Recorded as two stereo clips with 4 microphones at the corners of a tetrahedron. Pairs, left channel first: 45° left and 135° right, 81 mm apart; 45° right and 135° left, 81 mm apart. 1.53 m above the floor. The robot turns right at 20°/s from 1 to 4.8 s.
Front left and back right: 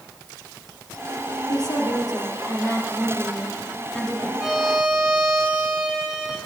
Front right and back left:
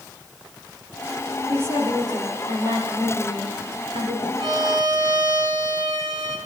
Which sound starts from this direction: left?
A woman speaking, at 1.5 s.